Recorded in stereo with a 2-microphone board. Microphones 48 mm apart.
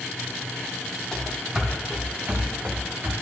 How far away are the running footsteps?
About 1.7 m.